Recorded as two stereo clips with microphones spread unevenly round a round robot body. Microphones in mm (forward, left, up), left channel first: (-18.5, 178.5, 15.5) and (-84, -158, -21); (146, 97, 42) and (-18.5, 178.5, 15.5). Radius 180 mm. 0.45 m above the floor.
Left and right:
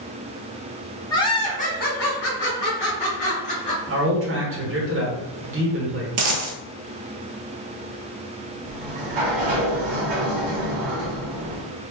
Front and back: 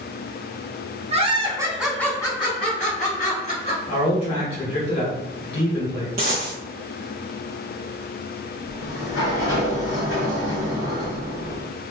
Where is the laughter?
160° left, 1.2 m; by 3.8 s 15° left, 2 m.